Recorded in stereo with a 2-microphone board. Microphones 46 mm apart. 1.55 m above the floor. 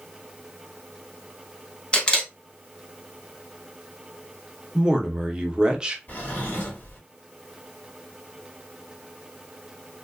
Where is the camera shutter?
20° left (ahead or behind), 0.8 m.